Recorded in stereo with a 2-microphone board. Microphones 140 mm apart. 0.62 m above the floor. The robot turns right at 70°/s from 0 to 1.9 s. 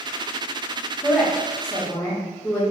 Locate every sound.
1.0 s a woman speaking: 10° right (ahead or behind), 0.9 m; by 2.6 s 20° left (ahead or behind), 0.9 m